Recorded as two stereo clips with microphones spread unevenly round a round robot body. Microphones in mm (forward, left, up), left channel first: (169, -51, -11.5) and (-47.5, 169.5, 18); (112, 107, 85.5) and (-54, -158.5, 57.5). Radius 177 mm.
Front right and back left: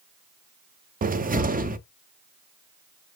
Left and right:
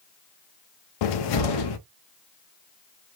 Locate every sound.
1.0 s a cupboard door: 65° left, 0.6 m